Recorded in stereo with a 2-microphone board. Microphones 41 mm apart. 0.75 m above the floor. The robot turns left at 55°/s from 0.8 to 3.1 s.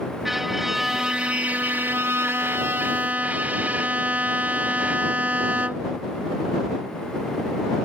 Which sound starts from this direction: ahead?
A violin, at 0.2 s.